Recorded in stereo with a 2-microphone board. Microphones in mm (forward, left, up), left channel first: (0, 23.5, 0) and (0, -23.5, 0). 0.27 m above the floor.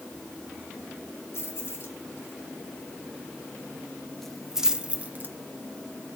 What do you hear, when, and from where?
1.3 s keys jangling: 60° left (ahead or behind), 2.5 m; by 5.3 s 40° right (ahead or behind), 1.1 m